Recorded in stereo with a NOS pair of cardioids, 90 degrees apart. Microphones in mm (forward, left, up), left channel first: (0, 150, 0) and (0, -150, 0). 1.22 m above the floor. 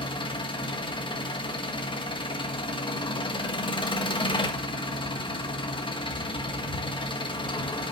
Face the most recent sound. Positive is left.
turn(degrees=15)